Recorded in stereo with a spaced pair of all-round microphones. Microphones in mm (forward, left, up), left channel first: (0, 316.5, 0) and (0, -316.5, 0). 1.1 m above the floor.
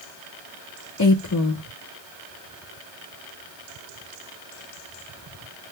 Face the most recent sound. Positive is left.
turn(degrees=30)  # may be behind; listen again after turning